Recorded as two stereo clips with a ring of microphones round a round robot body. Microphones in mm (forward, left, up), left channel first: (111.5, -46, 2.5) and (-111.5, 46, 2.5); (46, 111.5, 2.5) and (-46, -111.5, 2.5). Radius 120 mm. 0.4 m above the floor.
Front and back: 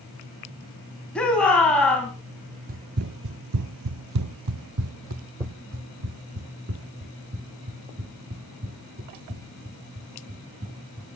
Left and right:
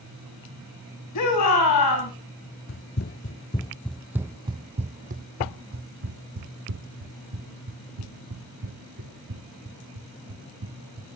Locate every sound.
1.1 s a shout: 65° left, 3.5 m
2.7 s running footsteps: 105° left, 0.8 m; by 11.2 s 145° right, 4 m